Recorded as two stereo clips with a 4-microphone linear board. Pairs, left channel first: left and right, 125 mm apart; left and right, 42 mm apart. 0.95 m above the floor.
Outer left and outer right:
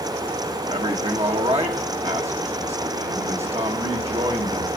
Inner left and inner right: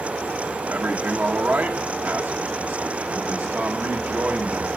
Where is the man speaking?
55° right (ahead or behind), 1.4 m.